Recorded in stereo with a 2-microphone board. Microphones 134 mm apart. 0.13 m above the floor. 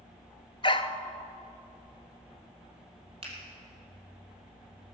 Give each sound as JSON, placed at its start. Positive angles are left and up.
{"t": 0.6, "sound": "a dog barking", "side_deg": 40, "distance_m": 0.6}
{"t": 3.2, "sound": "a finger snap", "side_deg": -45, "distance_m": 3.5}